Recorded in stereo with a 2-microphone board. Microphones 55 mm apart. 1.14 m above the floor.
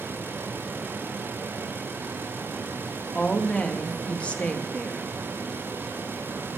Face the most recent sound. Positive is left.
turn(degrees=20)  # may be behind; listen again after turning